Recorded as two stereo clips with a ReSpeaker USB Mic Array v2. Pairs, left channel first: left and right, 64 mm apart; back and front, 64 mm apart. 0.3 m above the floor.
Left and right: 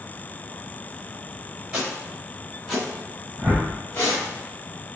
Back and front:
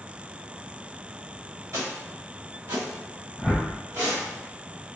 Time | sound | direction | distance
1.7 | footsteps | 15° right | 1.4 m
3.4 | a whoosh | 90° right | 1.0 m